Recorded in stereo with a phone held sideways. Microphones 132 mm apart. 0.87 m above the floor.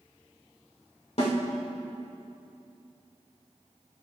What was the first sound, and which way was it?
A snare drum, 55° left (ahead or behind).